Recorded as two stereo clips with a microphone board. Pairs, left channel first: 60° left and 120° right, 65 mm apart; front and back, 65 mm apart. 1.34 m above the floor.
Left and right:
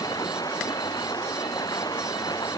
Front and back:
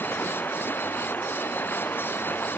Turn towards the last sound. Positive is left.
turn(degrees=60)